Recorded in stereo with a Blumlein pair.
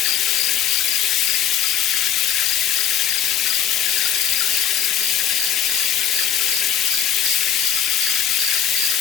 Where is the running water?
30° left, 0.9 m.